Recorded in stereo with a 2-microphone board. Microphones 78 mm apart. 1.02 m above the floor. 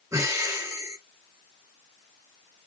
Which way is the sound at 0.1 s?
40° right (ahead or behind).